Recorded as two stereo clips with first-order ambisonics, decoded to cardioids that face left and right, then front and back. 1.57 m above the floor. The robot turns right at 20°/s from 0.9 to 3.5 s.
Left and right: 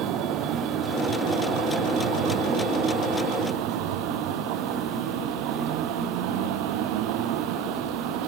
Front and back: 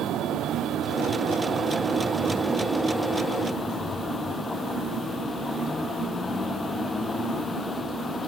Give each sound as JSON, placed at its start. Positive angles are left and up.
{"t": 0.0, "sound": "a vehicle", "azimuth_deg": -130}